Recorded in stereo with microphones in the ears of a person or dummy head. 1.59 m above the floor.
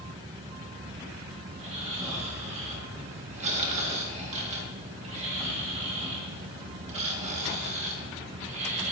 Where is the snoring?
40° right (ahead or behind), 2 m.